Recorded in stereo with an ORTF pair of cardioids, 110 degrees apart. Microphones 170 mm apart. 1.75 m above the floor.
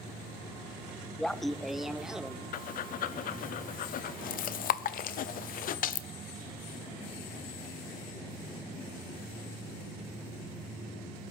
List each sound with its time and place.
1.2 s laughter: 5° left, 0.7 m; by 3.5 s 5° right, 2 m
2.5 s breathing: 55° left, 0.7 m